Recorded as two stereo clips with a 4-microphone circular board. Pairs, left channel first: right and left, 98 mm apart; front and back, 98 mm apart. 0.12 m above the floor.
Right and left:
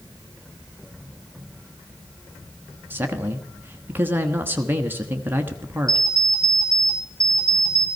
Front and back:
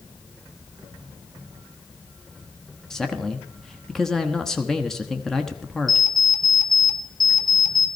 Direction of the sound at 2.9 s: 80° left.